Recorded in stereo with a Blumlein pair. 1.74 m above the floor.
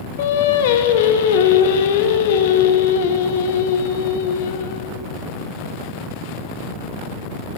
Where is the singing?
55° left, 0.7 m.